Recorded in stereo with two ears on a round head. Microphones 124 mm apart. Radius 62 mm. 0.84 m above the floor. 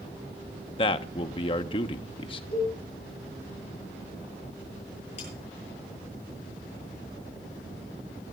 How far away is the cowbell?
About 9 m.